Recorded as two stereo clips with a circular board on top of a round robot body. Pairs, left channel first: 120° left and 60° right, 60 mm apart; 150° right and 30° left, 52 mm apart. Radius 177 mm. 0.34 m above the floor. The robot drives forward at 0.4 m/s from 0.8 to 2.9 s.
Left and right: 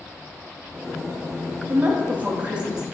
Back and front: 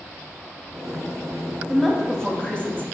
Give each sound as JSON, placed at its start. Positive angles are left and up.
{"t": 1.7, "sound": "a woman speaking", "azimuth_deg": -55, "distance_m": 0.9}